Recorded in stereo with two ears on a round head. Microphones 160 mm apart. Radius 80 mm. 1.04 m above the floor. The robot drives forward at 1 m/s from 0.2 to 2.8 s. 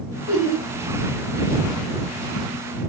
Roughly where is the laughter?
Left.